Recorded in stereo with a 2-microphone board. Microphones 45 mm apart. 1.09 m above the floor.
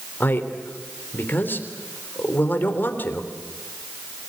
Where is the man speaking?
50° left (ahead or behind), 3 m.